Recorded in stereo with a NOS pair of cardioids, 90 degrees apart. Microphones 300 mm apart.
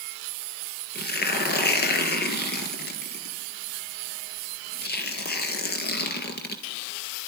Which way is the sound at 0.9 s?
35° left.